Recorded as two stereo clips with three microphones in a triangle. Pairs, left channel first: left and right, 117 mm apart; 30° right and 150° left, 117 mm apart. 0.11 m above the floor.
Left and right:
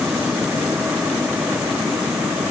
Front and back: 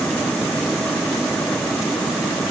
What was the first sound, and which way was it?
Only background noise.